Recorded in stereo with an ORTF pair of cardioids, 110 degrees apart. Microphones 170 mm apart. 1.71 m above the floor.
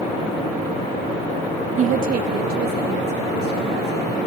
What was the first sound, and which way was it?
A woman speaking, 45° right.